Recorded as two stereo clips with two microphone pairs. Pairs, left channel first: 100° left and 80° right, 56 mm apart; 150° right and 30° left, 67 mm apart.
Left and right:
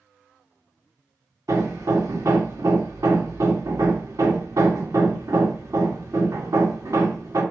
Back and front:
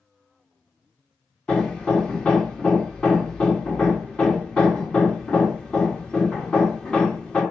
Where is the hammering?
80° right, 2 m.